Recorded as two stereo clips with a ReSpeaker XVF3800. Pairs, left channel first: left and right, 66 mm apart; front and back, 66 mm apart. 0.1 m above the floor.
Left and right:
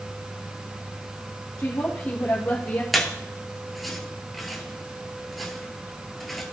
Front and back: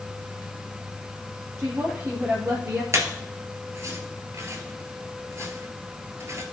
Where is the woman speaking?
130° left, 2.5 m; by 2.8 s 155° left, 2.5 m.